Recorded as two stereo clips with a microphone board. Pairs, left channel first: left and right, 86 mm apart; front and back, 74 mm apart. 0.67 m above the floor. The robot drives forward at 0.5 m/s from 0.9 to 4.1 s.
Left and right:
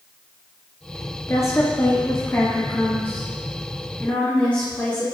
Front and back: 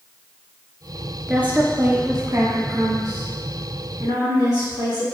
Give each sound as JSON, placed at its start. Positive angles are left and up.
{"t": 1.3, "sound": "a woman speaking", "azimuth_deg": 115, "distance_m": 1.1}